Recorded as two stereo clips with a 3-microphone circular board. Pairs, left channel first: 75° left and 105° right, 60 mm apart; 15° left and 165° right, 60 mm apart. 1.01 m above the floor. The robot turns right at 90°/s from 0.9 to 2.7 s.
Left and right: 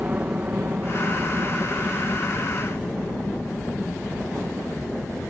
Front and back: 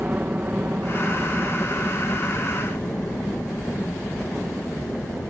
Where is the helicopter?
135° right; by 5.3 s 40° left.